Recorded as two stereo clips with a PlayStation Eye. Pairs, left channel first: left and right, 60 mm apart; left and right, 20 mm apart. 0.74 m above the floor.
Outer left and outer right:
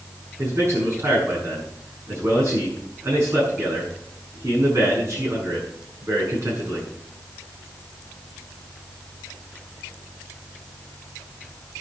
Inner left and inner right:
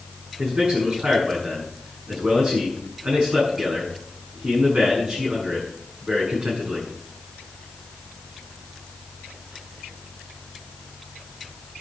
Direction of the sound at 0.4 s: 55° right (ahead or behind).